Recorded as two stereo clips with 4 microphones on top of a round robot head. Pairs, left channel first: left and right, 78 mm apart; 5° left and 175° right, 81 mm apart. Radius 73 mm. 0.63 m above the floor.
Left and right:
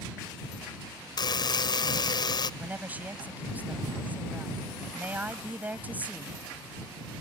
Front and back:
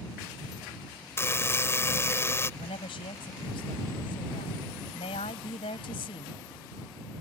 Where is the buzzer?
65° left.